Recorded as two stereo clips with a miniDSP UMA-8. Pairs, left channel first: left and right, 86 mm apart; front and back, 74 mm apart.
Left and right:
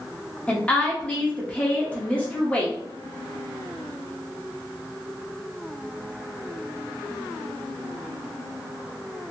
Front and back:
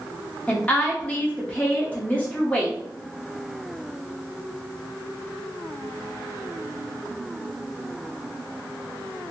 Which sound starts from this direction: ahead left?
A woman speaking, at 0.5 s.